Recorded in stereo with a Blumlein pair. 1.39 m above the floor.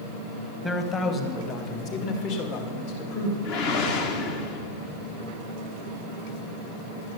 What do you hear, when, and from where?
0.6 s a man speaking: 15° left, 1.3 m; by 3.3 s 55° left, 2.5 m
3.4 s a whoosh: 45° left, 1.3 m